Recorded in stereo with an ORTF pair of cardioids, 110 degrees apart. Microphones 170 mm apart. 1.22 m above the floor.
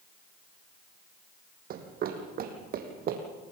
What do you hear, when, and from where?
1.7 s running footsteps: 60° right, 4 m